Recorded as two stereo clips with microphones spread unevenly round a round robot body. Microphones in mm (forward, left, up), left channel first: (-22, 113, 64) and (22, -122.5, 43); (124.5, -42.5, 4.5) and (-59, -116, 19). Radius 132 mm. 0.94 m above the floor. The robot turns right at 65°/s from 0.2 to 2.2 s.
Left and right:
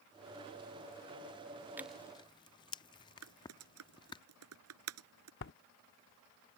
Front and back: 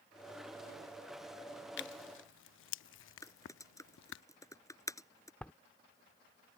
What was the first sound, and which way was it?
Tearing paper, 5° left.